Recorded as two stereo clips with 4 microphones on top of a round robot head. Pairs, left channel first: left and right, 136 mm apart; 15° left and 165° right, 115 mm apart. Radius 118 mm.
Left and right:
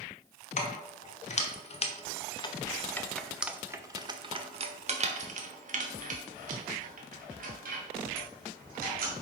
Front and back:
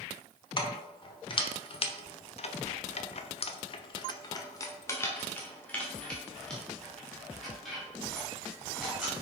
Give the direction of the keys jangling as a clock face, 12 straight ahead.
10 o'clock.